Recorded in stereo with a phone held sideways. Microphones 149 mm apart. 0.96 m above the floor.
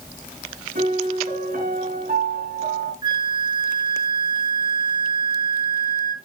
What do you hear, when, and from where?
0.8 s a piano: 65° right (ahead or behind), 3.5 m
3.0 s a flute: 30° right (ahead or behind), 0.9 m